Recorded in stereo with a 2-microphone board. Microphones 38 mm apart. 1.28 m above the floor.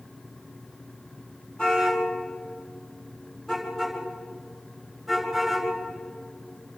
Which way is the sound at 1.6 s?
20° left (ahead or behind).